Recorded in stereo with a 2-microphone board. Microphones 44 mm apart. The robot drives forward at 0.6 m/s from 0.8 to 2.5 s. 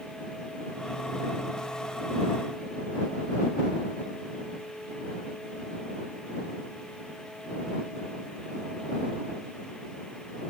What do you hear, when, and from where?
Only background noise.